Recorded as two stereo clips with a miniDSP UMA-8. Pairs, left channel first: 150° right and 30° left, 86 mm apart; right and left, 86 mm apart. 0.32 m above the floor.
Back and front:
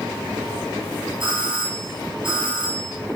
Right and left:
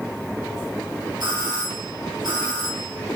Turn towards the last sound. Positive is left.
turn(degrees=55)